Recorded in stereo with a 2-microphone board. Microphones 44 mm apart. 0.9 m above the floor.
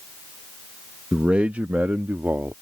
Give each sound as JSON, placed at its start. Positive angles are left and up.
{"t": 1.1, "sound": "a man speaking", "side_deg": -20}